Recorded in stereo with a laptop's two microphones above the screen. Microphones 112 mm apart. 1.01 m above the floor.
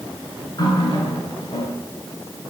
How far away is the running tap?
About 9 m.